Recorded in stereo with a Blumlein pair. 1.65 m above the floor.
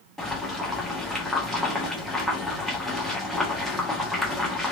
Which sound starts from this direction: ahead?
Boiling, at 0.2 s.